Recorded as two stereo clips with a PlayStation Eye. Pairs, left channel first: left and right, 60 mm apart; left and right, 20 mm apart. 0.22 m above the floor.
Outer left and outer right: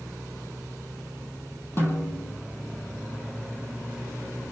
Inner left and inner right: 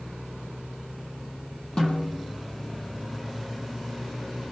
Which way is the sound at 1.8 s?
40° left (ahead or behind).